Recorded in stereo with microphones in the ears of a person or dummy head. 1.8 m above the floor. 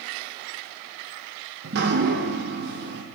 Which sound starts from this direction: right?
Dripping, at 1.6 s.